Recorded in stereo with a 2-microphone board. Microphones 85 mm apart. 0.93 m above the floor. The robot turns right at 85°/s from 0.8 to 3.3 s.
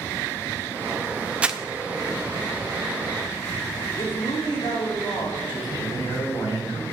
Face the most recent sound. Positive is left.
turn(degrees=65)  # may be behind; listen again after turning